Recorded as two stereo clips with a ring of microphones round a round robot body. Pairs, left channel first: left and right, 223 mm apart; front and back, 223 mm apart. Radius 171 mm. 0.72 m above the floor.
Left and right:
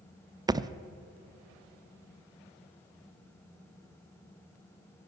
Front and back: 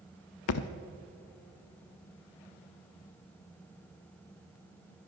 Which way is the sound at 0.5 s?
15° right.